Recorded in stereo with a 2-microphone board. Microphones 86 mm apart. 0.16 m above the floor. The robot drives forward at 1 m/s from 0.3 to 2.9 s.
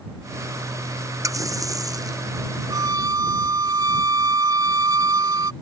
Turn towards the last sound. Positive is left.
turn(degrees=-45)  # may be behind; listen again after turning